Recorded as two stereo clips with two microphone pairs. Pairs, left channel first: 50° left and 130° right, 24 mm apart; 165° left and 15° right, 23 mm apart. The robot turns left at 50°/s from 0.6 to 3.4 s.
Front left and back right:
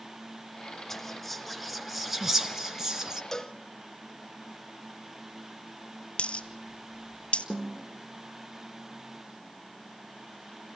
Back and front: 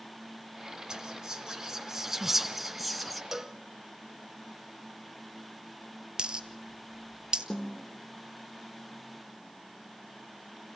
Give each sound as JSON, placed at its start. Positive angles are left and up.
{"t": 0.9, "sound": "whispering", "azimuth_deg": -5, "distance_m": 1.1}
{"t": 3.3, "sound": "a cowbell", "azimuth_deg": 40, "distance_m": 0.7}
{"t": 6.2, "sound": "a dropped coin", "azimuth_deg": 30, "distance_m": 0.9}
{"t": 7.5, "sound": "a snare drum", "azimuth_deg": -125, "distance_m": 2.5}